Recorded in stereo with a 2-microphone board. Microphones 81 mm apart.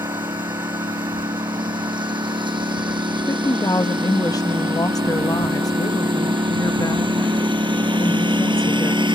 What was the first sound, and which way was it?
A lawn mower, 75° right (ahead or behind).